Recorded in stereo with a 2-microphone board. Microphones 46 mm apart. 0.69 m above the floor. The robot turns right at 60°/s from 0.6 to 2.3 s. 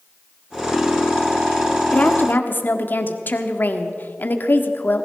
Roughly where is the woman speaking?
Left.